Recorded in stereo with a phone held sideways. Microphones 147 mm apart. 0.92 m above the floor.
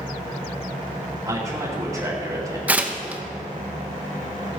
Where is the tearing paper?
10° right (ahead or behind), 1.0 m.